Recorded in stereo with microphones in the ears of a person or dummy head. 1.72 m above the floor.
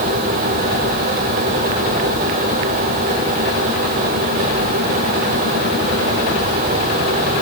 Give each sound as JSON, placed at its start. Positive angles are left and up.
{"t": 0.0, "sound": "a fan", "side_deg": -50, "distance_m": 2.0}